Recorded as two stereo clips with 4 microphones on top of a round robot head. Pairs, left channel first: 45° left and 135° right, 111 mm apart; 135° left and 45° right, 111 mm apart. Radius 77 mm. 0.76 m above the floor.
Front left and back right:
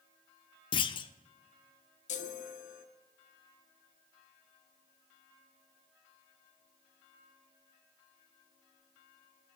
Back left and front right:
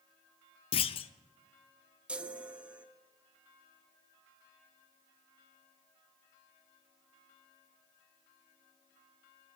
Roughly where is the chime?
Ahead left.